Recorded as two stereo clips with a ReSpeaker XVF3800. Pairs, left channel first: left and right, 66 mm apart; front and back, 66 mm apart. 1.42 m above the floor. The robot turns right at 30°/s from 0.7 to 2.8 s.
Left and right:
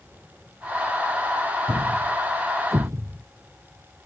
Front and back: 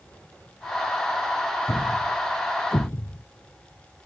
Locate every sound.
1.7 s a thud: 85° right; by 3.2 s 55° right